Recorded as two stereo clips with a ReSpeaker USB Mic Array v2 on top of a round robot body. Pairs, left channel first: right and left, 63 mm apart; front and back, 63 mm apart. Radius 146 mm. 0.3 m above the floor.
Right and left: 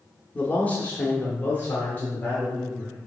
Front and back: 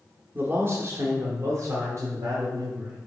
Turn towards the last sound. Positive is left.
turn(degrees=-150)